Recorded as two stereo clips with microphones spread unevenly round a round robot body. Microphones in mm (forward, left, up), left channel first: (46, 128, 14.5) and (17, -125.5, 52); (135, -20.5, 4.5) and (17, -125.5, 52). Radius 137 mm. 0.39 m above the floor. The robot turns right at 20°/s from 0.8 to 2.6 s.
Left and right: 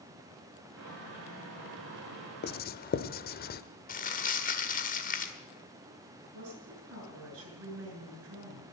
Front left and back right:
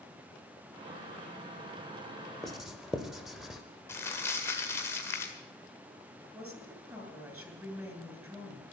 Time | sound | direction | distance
2.4 | writing | 115° left | 0.6 m
3.9 | crumpling | 80° left | 1.7 m
6.3 | a woman speaking | 60° right | 7 m